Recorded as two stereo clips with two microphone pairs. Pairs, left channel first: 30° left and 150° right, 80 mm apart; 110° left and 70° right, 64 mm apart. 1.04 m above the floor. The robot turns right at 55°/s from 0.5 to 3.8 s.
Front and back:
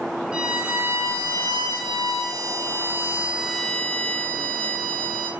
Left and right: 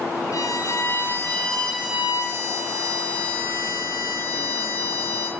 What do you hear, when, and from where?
0.3 s a violin: 135° left, 2.5 m; by 5.3 s 45° right, 2.5 m